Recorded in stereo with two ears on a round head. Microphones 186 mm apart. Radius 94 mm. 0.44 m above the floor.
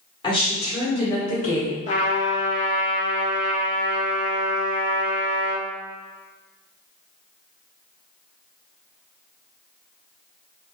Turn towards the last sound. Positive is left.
turn(degrees=35)  # may be behind; listen again after turning